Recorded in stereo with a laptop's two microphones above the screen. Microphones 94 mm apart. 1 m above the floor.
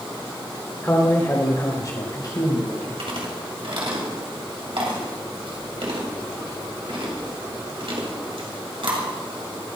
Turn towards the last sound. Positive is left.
turn(degrees=-75)  # may be behind; listen again after turning